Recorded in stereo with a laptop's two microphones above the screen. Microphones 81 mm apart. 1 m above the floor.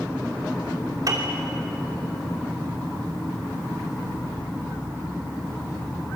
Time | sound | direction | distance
1.1 | a piano | 45° right (ahead or behind) | 3 m